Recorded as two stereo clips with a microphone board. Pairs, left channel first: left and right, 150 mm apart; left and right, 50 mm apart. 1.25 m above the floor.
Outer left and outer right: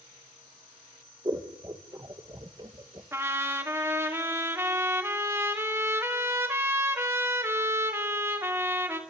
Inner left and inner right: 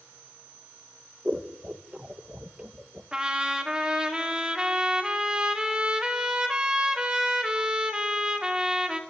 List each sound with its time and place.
1.2 s scissors: 25° right (ahead or behind), 1.4 m
3.1 s a trumpet: 15° right (ahead or behind), 2.5 m